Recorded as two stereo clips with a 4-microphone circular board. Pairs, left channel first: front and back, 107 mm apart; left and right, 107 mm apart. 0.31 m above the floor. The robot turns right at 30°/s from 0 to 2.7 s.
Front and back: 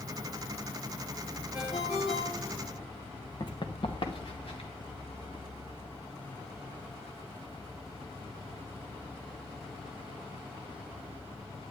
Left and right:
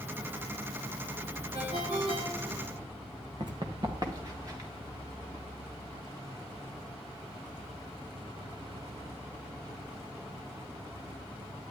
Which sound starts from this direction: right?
A ringtone, at 1.5 s.